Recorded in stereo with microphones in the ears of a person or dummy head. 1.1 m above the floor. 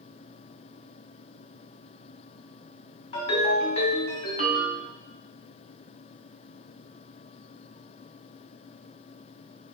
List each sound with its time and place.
3.1 s a ringtone: 45° left (ahead or behind), 1.4 m